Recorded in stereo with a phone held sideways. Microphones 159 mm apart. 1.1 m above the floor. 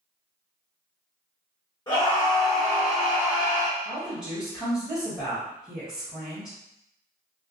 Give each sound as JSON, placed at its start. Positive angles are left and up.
{"t": 1.9, "sound": "a scream", "side_deg": 25, "distance_m": 1.4}
{"t": 3.8, "sound": "a woman speaking", "side_deg": 0, "distance_m": 1.2}